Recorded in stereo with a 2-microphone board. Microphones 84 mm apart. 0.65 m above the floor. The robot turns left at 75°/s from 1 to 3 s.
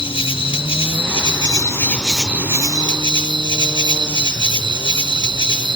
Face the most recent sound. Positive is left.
turn(degrees=-65)